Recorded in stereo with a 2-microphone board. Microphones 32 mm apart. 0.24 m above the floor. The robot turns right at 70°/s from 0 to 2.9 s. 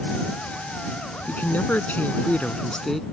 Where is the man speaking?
55° left; by 3.0 s 170° left.